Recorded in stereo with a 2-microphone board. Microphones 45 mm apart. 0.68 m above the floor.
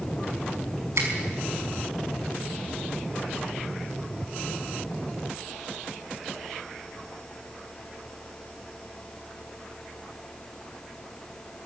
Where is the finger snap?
75° right (ahead or behind), 5 m.